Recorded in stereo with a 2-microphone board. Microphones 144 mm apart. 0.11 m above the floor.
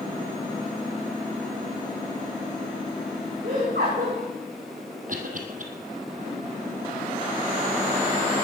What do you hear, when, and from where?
3.4 s laughter: 80° right, 7 m
5.1 s a cough: 60° right (ahead or behind), 3 m